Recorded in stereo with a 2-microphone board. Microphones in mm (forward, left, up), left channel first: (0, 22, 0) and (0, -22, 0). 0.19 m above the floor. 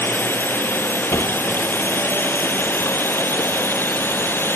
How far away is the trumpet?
No trumpet in this recording.